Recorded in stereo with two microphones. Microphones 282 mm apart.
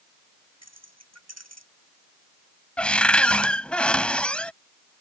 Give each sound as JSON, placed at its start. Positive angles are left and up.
{"t": 0.6, "sound": "keys jangling", "side_deg": -65}
{"t": 2.8, "sound": "a cupboard door", "side_deg": 5}